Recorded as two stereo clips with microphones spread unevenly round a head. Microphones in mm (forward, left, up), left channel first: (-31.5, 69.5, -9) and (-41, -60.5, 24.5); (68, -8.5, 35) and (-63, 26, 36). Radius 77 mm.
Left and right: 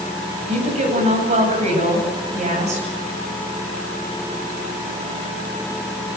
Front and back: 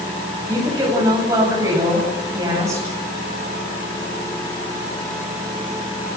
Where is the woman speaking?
125° right, 9.5 m.